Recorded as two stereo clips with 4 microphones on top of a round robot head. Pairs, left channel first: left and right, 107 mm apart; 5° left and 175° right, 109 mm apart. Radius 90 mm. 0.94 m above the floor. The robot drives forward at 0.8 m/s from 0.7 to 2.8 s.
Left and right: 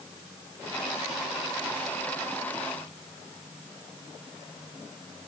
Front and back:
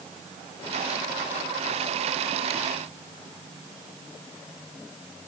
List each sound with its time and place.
Only background noise.